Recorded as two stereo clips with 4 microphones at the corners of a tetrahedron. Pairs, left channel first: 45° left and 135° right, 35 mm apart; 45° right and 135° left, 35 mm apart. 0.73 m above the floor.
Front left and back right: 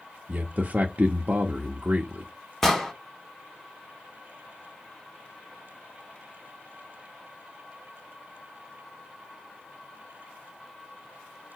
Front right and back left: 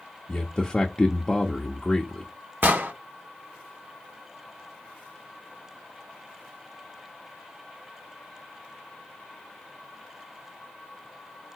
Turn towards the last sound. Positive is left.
turn(degrees=125)